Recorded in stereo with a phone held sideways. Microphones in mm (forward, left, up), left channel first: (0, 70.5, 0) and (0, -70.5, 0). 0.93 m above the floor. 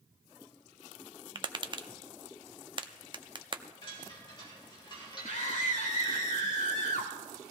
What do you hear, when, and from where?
1.4 s tapping: 35° right (ahead or behind), 0.6 m
3.8 s a chime: 35° left (ahead or behind), 2.5 m
5.2 s a scream: 60° left (ahead or behind), 3 m